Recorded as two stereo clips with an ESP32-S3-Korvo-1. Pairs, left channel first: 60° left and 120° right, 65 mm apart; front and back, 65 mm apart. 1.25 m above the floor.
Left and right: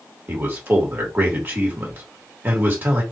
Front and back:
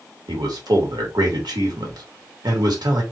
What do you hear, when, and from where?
0.3 s a man speaking: 175° left, 2 m